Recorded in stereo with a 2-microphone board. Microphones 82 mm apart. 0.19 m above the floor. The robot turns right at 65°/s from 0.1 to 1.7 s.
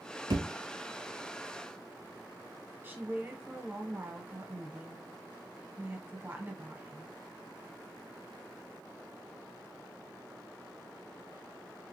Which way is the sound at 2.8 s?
25° right (ahead or behind).